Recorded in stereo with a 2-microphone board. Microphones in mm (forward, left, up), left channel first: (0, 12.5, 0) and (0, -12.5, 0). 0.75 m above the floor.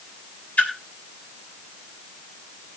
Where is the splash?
75° left (ahead or behind), 3 m.